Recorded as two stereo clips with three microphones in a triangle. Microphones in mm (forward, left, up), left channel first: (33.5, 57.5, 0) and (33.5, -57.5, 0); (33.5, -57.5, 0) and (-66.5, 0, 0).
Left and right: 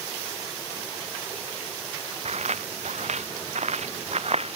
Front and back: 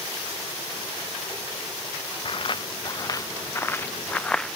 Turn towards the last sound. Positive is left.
turn(degrees=-120)